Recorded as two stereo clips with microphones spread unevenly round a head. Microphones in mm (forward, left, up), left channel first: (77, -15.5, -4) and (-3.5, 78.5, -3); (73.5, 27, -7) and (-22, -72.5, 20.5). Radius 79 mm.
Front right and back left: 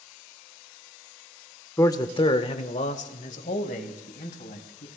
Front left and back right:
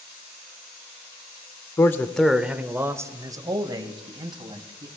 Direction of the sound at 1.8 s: 5° left.